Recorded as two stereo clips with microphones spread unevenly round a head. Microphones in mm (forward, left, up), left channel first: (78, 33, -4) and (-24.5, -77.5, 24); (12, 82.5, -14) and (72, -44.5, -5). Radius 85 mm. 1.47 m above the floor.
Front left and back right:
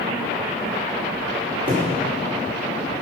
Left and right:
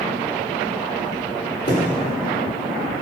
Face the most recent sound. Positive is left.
turn(degrees=175)